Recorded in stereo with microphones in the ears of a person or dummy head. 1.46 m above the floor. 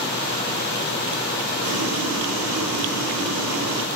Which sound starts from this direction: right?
Boiling, at 1.6 s.